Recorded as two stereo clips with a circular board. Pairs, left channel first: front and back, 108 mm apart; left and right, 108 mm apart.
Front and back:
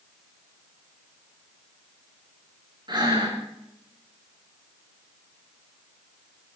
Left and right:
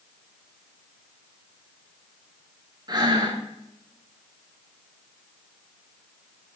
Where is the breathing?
135° right, 4 m.